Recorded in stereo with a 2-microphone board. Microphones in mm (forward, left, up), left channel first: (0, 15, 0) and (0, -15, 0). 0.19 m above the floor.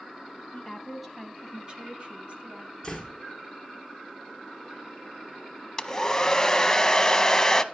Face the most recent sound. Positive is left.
turn(degrees=20)  # may be behind; listen again after turning